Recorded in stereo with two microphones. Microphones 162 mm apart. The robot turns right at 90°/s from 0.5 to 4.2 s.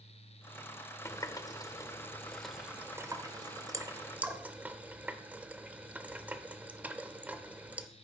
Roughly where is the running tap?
Centre.